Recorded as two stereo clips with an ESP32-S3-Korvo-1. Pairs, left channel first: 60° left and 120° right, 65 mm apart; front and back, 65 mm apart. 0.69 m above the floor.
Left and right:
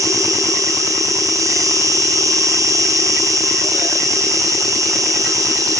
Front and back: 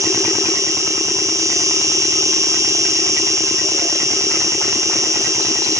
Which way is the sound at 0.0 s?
150° right.